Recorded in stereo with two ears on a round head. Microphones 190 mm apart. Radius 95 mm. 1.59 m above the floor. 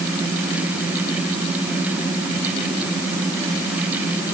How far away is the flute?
I don't hear a flute.